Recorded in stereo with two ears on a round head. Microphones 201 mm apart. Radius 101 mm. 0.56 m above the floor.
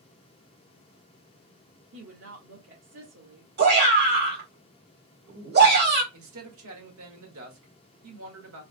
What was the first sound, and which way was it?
A woman speaking, 60° right (ahead or behind).